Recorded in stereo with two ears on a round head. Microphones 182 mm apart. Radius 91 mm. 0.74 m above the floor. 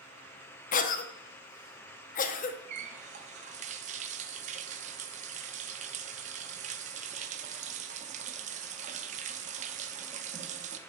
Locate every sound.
0.7 s a cough: 40° left (ahead or behind), 0.7 m
2.7 s a running tap: 35° right (ahead or behind), 0.6 m